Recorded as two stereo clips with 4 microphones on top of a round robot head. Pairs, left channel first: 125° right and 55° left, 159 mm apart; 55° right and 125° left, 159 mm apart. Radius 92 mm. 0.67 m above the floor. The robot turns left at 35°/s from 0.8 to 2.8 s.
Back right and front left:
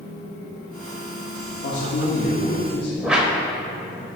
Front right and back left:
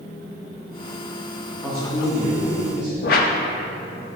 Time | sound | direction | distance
1.6 | a man speaking | 140° right | 1.4 m
3.0 | a whoosh | 30° right | 0.5 m